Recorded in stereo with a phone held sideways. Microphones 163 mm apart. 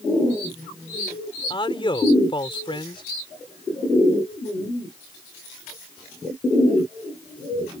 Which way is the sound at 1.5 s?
30° left (ahead or behind).